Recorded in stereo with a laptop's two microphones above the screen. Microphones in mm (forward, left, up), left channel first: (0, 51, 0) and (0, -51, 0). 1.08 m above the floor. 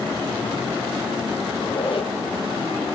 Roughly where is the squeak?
Left.